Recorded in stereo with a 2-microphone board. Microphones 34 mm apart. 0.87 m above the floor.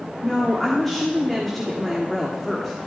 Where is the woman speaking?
10° left (ahead or behind), 1.7 m.